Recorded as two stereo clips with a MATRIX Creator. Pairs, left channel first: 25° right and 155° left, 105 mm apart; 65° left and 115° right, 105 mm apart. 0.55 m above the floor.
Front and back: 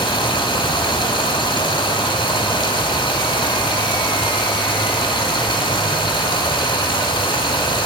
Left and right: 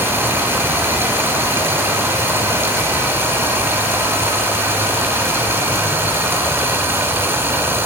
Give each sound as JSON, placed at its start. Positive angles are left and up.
{"t": 0.0, "sound": "running water", "azimuth_deg": -50, "distance_m": 1.8}